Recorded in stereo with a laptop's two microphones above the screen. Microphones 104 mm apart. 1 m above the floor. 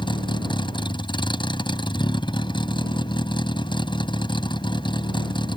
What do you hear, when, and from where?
0.0 s a vehicle: 50° left (ahead or behind)